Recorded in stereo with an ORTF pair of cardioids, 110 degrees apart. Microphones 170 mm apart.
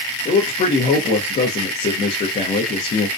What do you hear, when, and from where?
0.2 s a man speaking: 40° left, 0.6 m